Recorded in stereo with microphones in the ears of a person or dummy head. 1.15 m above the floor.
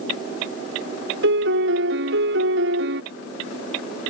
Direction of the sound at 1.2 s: 65° right (ahead or behind).